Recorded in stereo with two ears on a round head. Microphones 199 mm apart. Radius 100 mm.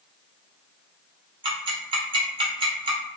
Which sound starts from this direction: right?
Ticking, at 1.4 s.